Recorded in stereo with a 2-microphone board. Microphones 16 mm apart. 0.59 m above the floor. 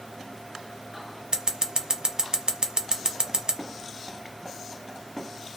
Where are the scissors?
60° right (ahead or behind), 0.7 m.